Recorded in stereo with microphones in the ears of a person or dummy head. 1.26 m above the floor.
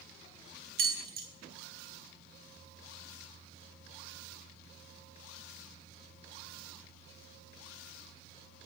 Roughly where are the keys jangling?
Right.